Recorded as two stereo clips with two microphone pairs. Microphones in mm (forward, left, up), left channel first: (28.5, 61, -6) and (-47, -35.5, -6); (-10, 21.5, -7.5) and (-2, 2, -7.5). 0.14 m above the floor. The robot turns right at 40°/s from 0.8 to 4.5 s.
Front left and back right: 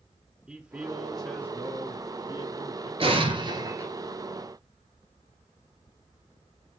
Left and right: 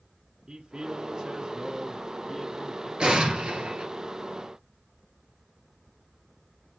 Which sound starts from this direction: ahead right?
A man speaking, at 0.5 s.